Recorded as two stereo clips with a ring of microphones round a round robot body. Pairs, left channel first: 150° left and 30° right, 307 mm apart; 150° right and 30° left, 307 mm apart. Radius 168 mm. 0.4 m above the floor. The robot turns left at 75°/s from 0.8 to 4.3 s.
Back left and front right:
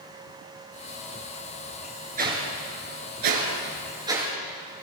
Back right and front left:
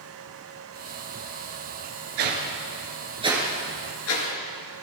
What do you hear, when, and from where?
2.2 s a whoosh: 35° left, 4 m; by 4.3 s 125° right, 4 m